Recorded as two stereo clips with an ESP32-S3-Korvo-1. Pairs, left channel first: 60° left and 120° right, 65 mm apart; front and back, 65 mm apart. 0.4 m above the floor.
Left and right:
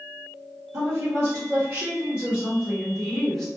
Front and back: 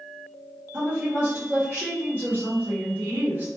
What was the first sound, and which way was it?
A woman speaking, 110° right.